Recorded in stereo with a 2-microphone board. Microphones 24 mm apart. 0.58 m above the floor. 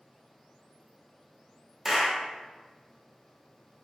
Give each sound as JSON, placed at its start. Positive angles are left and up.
{"t": 1.9, "sound": "a clap", "side_deg": -15, "distance_m": 0.9}